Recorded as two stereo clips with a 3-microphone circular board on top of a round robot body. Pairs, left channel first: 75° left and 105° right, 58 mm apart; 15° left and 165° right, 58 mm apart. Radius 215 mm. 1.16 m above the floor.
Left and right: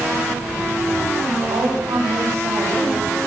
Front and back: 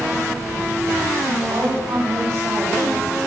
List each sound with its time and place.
1.4 s a woman speaking: 110° right, 6.5 m